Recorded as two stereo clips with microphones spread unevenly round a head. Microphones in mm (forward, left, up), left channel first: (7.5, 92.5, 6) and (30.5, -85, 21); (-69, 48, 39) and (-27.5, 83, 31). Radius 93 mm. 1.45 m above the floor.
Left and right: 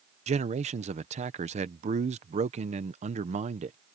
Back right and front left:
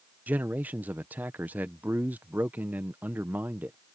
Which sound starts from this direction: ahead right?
A man speaking, at 0.3 s.